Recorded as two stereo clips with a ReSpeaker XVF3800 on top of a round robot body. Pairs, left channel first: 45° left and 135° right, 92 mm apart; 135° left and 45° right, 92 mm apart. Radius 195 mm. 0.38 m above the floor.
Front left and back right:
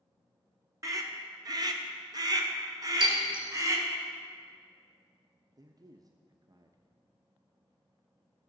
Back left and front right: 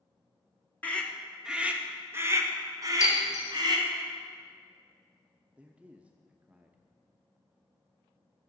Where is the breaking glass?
165° right, 4.5 m.